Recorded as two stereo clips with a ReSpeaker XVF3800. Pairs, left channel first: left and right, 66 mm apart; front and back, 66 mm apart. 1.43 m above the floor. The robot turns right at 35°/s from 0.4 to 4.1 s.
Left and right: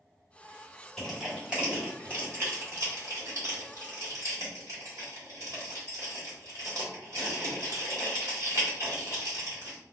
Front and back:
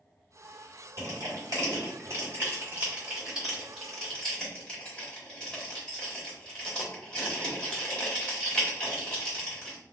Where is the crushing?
Straight behind, 1.8 m; by 9.8 s 70° right, 1.8 m.